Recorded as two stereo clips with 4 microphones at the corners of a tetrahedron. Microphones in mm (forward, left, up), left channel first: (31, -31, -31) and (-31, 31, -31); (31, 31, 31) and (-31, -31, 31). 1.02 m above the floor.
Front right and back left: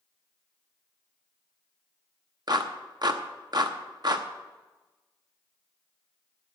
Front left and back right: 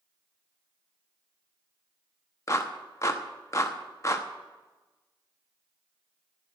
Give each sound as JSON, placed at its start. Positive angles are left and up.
{"t": 2.5, "sound": "a clap", "azimuth_deg": 100, "distance_m": 0.9}